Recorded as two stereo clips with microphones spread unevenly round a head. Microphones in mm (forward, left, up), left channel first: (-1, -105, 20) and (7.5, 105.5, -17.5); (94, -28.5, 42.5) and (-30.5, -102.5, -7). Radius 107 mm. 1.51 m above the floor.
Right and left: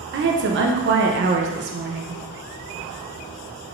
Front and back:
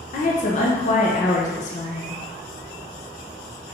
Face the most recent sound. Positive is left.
turn(degrees=50)